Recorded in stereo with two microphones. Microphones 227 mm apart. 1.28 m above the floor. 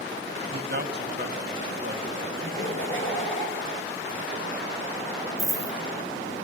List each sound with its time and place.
0.4 s a man speaking: 45° right (ahead or behind), 1.6 m
2.4 s laughter: 60° left (ahead or behind), 4.5 m
5.4 s a dropped coin: 10° right (ahead or behind), 0.7 m